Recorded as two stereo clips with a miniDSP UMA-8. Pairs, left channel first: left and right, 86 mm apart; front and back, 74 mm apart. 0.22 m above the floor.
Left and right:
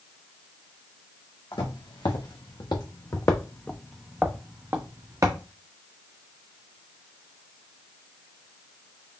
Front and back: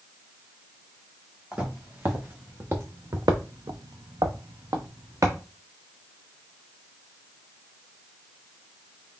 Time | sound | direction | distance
1.5 | footsteps | 110° left | 1.7 m